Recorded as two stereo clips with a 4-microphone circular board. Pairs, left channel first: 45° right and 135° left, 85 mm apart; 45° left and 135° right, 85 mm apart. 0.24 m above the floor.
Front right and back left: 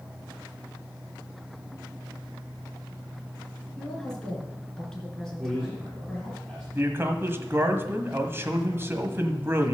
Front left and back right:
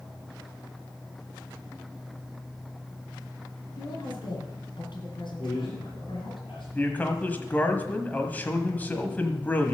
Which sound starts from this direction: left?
A man speaking, at 6.7 s.